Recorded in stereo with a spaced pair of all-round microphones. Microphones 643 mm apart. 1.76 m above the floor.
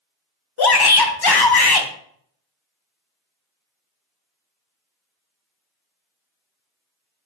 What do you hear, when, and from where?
0.6 s a shout: 40° left (ahead or behind), 0.5 m